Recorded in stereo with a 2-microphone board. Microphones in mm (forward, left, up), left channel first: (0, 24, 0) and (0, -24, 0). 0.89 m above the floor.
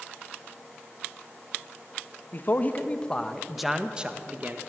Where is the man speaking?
45° left (ahead or behind), 1.4 m; by 4.6 s 40° right (ahead or behind), 1.4 m.